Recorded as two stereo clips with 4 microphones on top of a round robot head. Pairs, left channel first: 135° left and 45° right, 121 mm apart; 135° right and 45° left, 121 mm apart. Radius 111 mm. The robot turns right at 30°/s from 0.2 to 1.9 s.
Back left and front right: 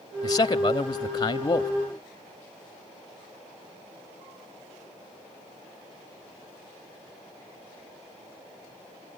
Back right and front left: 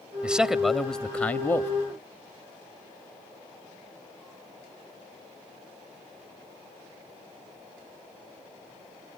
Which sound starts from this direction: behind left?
A man speaking, at 0.2 s.